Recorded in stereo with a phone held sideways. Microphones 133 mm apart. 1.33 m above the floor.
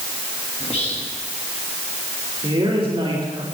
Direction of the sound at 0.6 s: 50° left (ahead or behind).